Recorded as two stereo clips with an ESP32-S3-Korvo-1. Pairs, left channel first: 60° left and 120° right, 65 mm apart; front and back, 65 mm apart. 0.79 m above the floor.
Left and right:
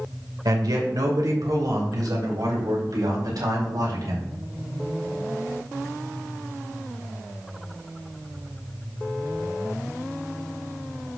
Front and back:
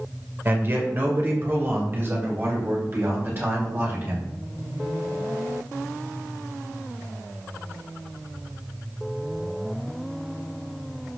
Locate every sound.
0.5 s a man speaking: 125° right, 2.5 m